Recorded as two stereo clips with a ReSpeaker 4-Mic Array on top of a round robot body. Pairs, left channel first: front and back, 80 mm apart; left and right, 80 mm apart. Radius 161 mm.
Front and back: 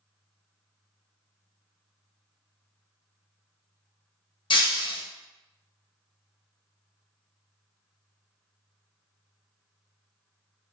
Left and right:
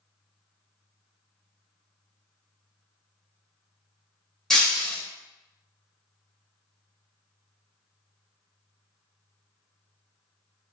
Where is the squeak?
I don't hear a squeak.